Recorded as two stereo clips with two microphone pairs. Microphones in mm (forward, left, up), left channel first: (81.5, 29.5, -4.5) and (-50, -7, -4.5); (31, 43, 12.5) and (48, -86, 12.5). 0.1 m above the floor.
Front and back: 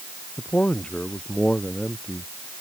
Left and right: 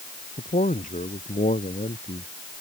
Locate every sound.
0.4 s a man speaking: 95° left; by 2.3 s 105° left